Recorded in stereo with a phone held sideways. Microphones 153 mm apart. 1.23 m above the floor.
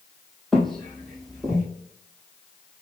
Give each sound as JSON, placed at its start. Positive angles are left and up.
{"t": 0.5, "sound": "footsteps", "side_deg": 0, "distance_m": 1.7}